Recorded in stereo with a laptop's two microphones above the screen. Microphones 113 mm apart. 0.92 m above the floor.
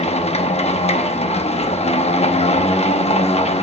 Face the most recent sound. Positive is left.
turn(degrees=65)  # may be behind; listen again after turning